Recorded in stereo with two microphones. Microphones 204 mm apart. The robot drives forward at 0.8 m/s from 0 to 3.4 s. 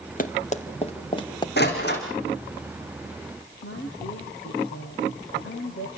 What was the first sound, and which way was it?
Running footsteps, 40° left (ahead or behind).